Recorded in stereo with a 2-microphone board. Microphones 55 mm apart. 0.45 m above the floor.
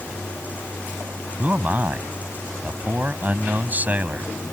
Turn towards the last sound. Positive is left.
turn(degrees=-30)  # may be behind; listen again after turning